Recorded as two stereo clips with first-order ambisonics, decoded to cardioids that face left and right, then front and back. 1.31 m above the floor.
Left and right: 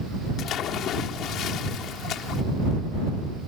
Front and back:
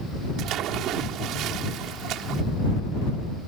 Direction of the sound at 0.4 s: 135° left.